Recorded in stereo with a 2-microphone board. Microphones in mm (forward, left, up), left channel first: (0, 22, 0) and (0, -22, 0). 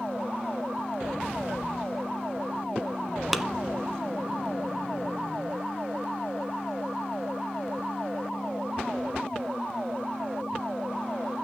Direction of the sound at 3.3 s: 5° right (ahead or behind).